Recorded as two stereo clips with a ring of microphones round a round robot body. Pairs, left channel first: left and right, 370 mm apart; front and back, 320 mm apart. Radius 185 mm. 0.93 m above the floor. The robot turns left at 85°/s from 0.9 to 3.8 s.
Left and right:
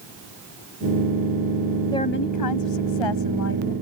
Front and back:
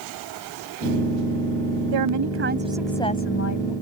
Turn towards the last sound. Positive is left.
turn(degrees=10)